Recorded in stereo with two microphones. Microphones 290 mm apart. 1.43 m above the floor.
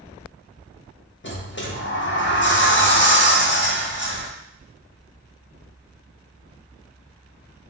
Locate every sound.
1.2 s a sliding door: 40° left (ahead or behind), 0.5 m